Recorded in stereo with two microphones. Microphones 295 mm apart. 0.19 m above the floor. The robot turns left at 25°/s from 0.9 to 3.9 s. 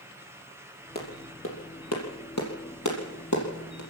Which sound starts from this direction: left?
A clap, at 0.9 s.